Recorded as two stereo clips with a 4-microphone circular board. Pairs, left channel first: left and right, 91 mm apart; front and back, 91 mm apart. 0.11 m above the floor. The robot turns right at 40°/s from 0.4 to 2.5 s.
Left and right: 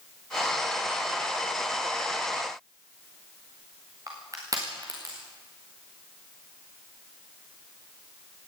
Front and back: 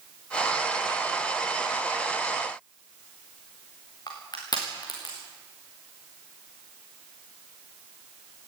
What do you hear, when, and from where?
4.1 s crushing: 40° right, 5.5 m